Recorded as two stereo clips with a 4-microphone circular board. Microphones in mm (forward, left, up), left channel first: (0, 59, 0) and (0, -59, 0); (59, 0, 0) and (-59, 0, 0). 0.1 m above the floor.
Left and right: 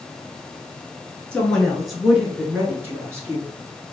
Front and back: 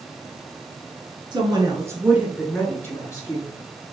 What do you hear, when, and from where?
1.3 s a woman speaking: 165° left, 1.4 m; by 3.5 s 40° right, 1.5 m